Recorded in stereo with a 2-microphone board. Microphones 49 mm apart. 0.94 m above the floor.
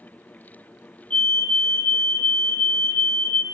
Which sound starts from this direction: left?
A fire alarm, at 1.1 s.